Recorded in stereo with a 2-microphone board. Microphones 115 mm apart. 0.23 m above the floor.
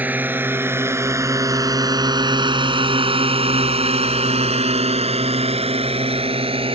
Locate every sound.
0.0 s a drone: 15° right (ahead or behind); by 6.8 s 50° right (ahead or behind)